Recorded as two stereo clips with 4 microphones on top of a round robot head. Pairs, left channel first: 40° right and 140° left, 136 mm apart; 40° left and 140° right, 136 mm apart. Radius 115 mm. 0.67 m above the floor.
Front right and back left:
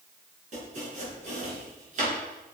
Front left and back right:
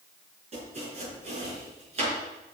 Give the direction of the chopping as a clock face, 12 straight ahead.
6 o'clock.